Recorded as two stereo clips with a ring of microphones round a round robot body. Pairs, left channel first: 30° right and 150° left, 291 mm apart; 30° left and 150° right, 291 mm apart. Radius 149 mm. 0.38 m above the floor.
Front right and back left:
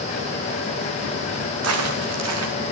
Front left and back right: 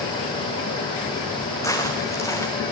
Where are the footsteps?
110° left, 4 m.